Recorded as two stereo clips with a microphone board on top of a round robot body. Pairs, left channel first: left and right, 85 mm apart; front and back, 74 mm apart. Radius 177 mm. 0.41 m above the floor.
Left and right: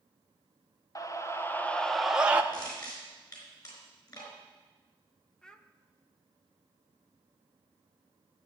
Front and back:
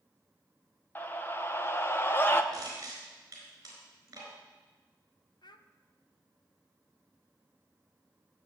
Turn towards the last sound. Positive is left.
turn(degrees=10)